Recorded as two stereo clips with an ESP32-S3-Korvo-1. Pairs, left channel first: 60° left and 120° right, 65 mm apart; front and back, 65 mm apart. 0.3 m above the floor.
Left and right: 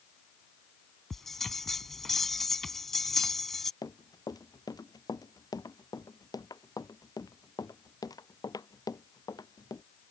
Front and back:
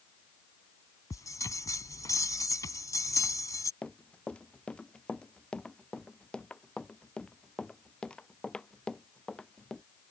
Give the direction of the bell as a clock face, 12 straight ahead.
1 o'clock.